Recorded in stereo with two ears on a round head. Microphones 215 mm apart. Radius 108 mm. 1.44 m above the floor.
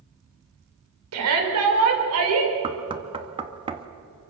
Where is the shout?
70° right (ahead or behind), 6 m.